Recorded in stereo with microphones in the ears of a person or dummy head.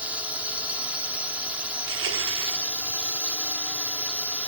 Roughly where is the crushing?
Right.